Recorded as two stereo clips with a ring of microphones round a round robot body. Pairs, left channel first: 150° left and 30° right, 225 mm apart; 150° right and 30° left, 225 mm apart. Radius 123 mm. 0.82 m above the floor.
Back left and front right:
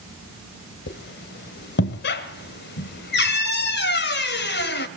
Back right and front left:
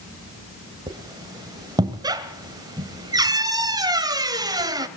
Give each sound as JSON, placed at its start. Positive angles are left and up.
{"t": 0.9, "sound": "a squeak", "azimuth_deg": 105, "distance_m": 1.7}